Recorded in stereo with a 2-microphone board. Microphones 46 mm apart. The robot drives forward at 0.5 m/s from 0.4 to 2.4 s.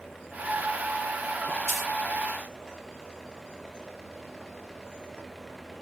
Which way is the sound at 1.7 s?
Centre (ahead or behind).